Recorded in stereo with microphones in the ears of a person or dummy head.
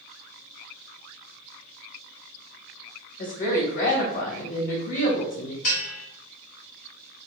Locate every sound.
3.2 s a woman speaking: 50° left (ahead or behind), 2.0 m
5.6 s a bell: 50° left (ahead or behind), 1.5 m